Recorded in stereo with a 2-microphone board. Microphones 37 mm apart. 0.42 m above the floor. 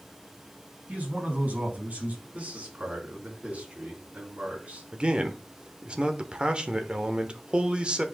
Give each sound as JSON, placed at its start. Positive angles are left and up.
{"t": 0.9, "sound": "a man speaking", "side_deg": -45, "distance_m": 4.5}
{"t": 2.3, "sound": "a man speaking", "side_deg": -40, "distance_m": 4.5}
{"t": 4.9, "sound": "a man speaking", "side_deg": -25, "distance_m": 1.0}